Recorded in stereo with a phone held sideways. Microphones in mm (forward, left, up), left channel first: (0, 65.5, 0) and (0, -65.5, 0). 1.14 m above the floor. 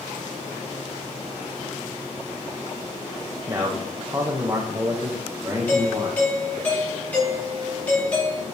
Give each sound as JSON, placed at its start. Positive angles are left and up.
{"t": 3.5, "sound": "a man speaking", "side_deg": -25, "distance_m": 1.4}
{"t": 5.7, "sound": "a doorbell", "side_deg": 10, "distance_m": 4.0}